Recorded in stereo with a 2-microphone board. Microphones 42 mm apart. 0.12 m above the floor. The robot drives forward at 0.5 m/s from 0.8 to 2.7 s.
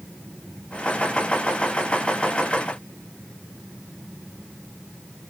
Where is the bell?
I don't hear a bell.